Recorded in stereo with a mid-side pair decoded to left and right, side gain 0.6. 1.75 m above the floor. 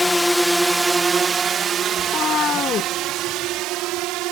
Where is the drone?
10° left; by 4.3 s 70° right.